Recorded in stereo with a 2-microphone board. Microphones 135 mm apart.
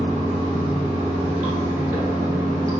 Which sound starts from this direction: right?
Running water, at 0.0 s.